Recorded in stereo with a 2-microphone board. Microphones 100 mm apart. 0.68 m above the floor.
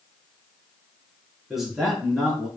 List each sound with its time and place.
1.5 s a man speaking: 5° right (ahead or behind), 6.5 m